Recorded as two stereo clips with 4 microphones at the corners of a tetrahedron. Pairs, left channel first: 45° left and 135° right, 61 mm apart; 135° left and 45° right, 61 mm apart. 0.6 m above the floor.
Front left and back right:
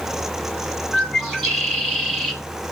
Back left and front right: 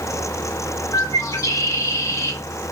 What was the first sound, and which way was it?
A bird, 130° left.